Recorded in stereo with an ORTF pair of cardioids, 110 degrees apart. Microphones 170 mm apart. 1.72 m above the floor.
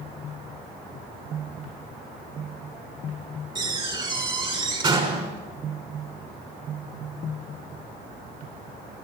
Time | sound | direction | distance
3.5 | a door slam | 30° right | 5.5 m